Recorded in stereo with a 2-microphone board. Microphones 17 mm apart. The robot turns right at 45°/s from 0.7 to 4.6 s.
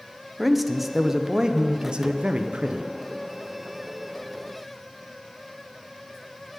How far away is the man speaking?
About 0.7 m.